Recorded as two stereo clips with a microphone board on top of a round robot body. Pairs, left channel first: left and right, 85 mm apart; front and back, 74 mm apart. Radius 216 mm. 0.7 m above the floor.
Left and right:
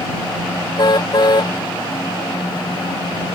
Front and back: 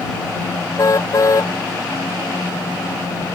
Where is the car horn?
50° left.